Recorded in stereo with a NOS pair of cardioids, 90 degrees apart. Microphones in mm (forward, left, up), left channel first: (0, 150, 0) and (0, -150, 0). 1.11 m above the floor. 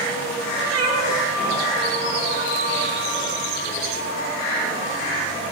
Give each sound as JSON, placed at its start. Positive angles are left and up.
{"t": 0.7, "sound": "a cat meowing", "azimuth_deg": -65, "distance_m": 8.0}